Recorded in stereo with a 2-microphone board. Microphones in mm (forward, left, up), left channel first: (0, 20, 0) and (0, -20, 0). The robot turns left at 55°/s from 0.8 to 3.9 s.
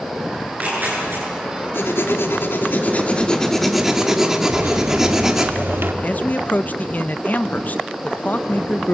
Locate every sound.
0.4 s tearing paper: 45° right (ahead or behind), 10 m; by 1.2 s 70° right (ahead or behind), 10 m
1.7 s writing: 110° left, 2 m; by 5.5 s 10° right, 2 m
4.5 s a microwave: 70° right (ahead or behind), 2.5 m
6.0 s a man speaking: 40° left (ahead or behind), 0.7 m